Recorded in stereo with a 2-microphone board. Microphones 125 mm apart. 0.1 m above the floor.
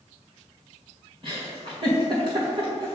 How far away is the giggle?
About 2 m.